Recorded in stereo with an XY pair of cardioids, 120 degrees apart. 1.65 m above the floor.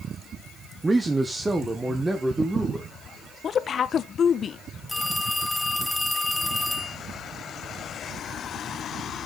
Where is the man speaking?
20° right, 1.0 m; by 2.9 s 15° right, 2 m.